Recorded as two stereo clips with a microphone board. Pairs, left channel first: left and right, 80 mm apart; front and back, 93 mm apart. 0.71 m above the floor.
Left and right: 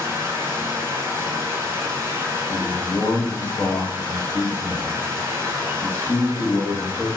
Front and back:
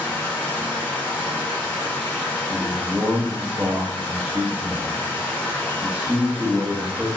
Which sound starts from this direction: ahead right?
Running water, at 0.0 s.